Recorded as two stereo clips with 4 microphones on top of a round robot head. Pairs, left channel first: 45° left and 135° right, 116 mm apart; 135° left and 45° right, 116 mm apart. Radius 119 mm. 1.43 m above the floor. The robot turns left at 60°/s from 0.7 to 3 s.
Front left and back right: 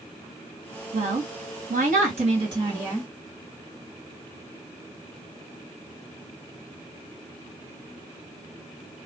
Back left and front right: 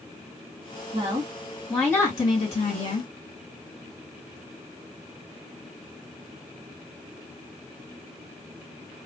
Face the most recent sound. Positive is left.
turn(degrees=145)